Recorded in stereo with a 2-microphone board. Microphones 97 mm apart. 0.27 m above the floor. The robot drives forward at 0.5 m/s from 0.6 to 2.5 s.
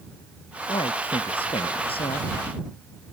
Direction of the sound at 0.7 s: 70° left (ahead or behind).